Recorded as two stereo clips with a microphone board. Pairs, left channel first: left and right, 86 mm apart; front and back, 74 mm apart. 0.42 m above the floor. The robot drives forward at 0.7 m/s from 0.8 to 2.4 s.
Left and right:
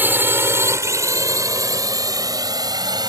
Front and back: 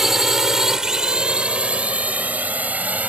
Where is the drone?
105° right; by 3.1 s 115° right.